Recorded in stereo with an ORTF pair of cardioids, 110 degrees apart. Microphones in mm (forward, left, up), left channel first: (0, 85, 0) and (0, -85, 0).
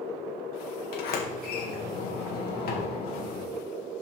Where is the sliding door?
70° left, 1.7 m.